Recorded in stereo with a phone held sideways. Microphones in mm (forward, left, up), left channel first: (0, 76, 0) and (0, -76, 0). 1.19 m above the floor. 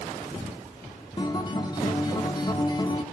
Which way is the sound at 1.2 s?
30° left (ahead or behind).